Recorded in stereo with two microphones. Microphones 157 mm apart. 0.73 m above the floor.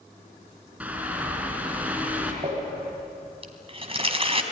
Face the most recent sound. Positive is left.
turn(degrees=-40)  # may be behind; listen again after turning